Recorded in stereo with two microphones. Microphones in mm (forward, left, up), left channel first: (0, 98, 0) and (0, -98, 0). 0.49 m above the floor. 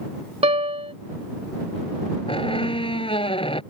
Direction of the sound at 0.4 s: 30° right (ahead or behind).